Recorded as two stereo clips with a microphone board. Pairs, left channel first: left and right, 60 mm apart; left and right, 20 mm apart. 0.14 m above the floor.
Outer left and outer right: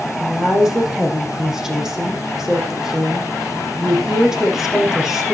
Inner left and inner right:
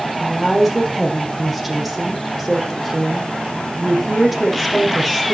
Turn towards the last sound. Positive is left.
turn(degrees=-5)  # may be behind; listen again after turning